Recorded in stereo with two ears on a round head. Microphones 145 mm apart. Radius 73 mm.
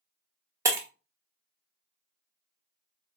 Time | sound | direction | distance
0.7 | breaking glass | 20° right (ahead or behind) | 0.8 m